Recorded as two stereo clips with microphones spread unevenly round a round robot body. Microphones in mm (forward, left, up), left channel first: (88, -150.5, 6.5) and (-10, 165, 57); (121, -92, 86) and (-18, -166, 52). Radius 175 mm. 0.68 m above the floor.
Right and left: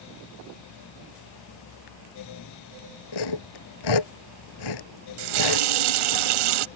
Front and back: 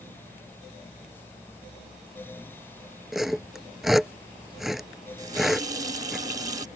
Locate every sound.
3.1 s sawing: 60° right
5.2 s a running tap: 135° left